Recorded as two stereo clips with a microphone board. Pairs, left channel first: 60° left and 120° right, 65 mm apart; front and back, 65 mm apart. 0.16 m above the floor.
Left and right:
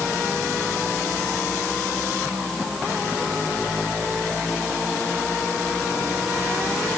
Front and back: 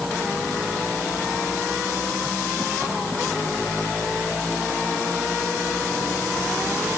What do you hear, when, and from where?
Only background noise.